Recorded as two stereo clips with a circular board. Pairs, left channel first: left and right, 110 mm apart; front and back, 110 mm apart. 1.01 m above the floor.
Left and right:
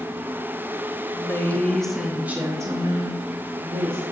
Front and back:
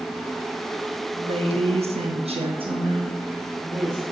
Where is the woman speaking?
150° left, 1.2 m; by 4.0 s 115° right, 1.6 m.